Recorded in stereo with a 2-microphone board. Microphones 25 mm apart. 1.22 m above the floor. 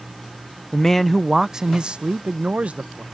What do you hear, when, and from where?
0.7 s a man speaking: 25° left (ahead or behind); by 3.0 s 65° right (ahead or behind)